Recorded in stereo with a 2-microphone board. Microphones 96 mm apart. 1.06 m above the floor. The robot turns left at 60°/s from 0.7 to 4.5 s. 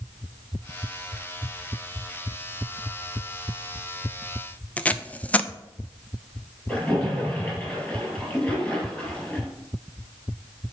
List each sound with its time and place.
4.8 s tape being pulled: 15° left (ahead or behind), 0.5 m
6.7 s a splash: 10° left (ahead or behind), 6 m